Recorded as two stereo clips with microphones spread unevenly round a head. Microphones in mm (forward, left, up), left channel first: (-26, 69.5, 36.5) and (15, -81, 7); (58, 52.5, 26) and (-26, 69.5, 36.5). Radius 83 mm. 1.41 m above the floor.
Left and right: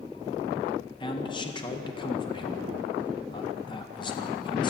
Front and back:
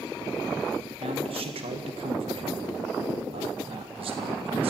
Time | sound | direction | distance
1.0 | a man speaking | 170° left | 1.9 m